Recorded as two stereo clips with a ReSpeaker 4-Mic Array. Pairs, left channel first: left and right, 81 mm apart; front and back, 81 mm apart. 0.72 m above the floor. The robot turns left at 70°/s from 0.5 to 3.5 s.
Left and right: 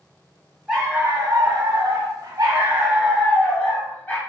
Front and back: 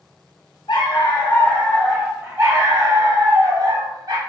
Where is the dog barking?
5° right, 1.2 m; by 4.2 s 155° left, 1.2 m.